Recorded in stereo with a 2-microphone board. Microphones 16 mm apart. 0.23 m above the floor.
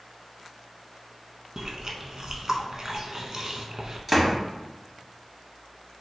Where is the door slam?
5° right (ahead or behind), 1.1 m.